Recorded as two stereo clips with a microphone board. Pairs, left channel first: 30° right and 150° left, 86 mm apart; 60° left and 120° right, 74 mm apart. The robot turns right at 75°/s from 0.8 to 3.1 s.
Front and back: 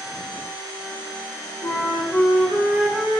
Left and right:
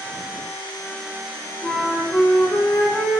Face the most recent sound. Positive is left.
turn(degrees=90)